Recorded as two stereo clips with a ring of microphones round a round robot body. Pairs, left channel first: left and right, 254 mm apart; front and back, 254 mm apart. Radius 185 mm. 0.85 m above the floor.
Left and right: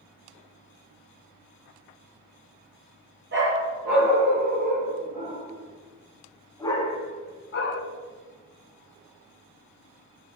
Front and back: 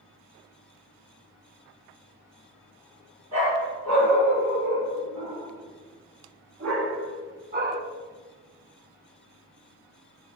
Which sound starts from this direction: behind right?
A dog barking, at 3.3 s.